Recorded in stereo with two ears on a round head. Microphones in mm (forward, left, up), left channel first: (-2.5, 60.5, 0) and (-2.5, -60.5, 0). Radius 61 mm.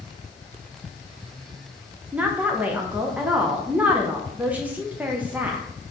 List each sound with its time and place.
2.1 s a woman speaking: 10° right (ahead or behind), 0.6 m